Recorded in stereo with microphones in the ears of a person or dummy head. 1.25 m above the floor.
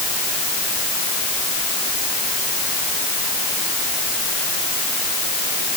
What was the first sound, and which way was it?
Only background noise.